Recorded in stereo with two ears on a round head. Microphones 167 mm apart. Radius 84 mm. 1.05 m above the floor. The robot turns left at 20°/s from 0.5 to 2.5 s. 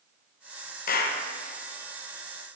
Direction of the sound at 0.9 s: 50° left (ahead or behind).